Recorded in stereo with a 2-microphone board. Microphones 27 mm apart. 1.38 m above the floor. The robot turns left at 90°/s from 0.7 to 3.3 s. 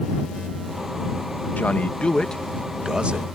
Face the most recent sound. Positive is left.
turn(degrees=-65)